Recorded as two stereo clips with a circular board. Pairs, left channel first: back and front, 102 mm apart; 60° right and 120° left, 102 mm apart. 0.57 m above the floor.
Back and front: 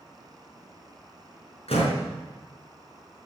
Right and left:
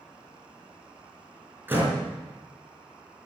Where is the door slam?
170° right, 4.5 m.